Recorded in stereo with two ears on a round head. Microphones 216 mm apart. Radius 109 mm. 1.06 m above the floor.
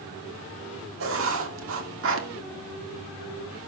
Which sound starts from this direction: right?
Writing, at 1.0 s.